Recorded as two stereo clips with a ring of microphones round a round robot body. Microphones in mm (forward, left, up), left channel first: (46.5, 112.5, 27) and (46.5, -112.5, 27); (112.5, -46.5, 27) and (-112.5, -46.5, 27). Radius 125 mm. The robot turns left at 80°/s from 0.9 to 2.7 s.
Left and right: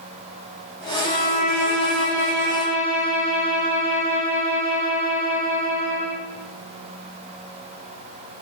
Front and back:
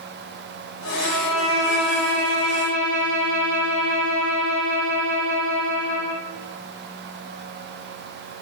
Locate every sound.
1.0 s a violin: 155° left, 3.5 m; by 6.2 s 25° left, 3.5 m